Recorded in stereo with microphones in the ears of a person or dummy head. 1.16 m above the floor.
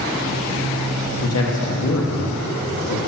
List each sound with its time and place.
1.2 s a man speaking: 85° left, 1.6 m